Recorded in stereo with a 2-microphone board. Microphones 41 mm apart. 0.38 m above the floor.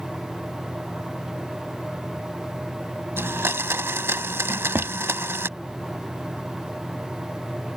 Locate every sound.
3.2 s a blender: 75° right (ahead or behind)
4.5 s a drawer: 65° right (ahead or behind)